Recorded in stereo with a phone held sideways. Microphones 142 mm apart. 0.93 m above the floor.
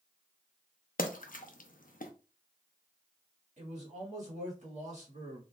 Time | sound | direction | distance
1.0 | a splash | 75° left (ahead or behind) | 0.6 m
3.6 | a man speaking | 55° right (ahead or behind) | 1.8 m